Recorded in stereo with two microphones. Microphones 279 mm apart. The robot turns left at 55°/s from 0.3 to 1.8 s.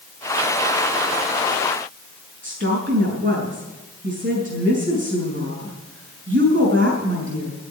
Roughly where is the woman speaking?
Right.